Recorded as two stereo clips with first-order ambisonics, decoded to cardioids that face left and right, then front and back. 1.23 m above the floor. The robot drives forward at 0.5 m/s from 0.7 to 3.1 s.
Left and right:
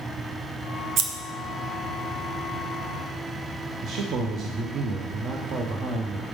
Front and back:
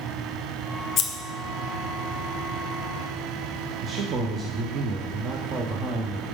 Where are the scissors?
50° right, 0.6 m; by 1.1 s 55° right, 0.6 m.